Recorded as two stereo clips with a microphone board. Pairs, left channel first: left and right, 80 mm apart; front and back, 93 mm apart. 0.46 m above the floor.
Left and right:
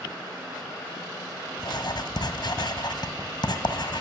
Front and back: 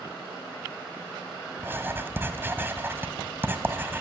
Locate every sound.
1.6 s writing: 115° left, 1.6 m